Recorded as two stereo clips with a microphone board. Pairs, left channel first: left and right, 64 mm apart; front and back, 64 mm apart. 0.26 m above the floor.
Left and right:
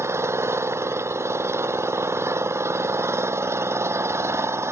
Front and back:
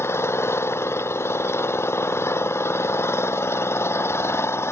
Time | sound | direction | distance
0.0 | an engine running | 45° right | ?